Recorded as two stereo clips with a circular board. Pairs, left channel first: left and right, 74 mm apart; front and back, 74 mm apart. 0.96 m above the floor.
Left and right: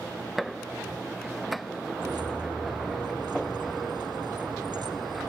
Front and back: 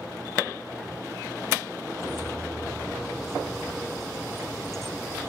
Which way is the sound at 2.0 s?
85° right.